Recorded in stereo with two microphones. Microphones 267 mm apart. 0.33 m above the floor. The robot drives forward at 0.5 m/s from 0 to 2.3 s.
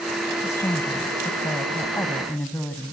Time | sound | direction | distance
0.4 | a woman speaking | 10° left (ahead or behind) | 1.2 m